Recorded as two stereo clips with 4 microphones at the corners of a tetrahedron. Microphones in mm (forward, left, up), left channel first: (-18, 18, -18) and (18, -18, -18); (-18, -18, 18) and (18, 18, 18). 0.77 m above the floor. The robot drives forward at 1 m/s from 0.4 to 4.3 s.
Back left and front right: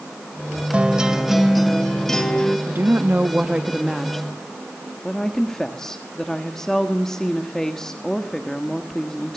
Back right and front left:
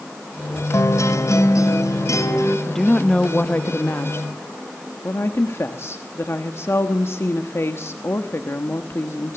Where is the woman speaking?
50° right, 1.2 m; by 9.4 s 145° right, 1.5 m.